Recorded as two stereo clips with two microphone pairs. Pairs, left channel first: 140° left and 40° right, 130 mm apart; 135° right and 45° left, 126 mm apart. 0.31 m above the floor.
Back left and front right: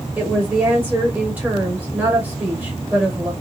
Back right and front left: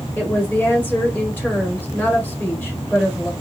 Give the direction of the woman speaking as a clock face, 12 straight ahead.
3 o'clock.